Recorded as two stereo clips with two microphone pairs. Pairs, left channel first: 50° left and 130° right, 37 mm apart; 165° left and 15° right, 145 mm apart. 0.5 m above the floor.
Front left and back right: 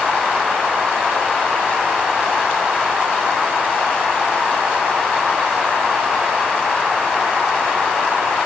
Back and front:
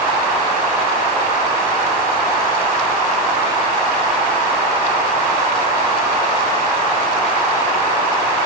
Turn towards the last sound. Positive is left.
No sound to turn to.